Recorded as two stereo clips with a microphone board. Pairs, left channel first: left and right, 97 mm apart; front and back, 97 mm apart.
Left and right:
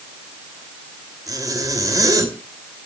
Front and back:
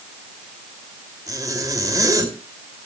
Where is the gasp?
No gasp in this recording.